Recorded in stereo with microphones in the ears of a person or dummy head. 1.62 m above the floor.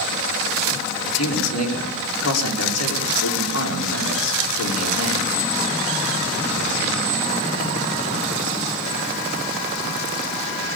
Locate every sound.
1.1 s a man speaking: 90° left, 6 m